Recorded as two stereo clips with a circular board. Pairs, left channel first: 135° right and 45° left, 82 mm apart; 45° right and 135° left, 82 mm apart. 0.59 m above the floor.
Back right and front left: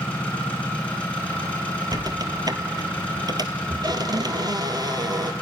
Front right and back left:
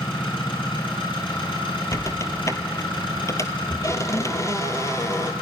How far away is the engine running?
About 5.5 m.